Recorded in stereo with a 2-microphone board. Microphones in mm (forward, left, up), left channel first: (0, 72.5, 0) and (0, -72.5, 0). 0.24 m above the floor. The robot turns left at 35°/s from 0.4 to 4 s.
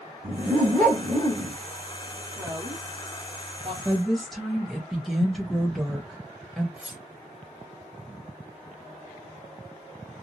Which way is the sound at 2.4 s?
20° right (ahead or behind).